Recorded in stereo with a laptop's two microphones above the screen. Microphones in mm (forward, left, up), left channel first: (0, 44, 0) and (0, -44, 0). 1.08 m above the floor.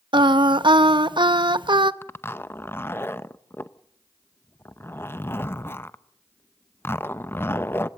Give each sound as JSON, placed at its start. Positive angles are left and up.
{"t": 0.1, "sound": "singing", "side_deg": -60, "distance_m": 0.8}
{"t": 2.0, "sound": "a zipper", "side_deg": 25, "distance_m": 0.7}